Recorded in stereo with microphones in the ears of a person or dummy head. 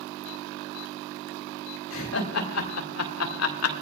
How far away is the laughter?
About 3 m.